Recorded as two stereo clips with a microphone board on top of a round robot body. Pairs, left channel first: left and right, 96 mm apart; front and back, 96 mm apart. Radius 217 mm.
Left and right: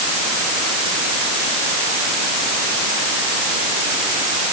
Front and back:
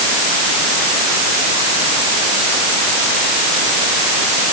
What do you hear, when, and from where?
Only background noise.